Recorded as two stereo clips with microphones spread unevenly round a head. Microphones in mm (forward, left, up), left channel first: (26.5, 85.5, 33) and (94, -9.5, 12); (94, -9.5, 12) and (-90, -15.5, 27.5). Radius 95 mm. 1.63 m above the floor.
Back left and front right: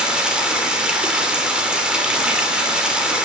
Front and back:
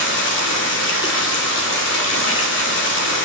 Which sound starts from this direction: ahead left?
Running water, at 0.0 s.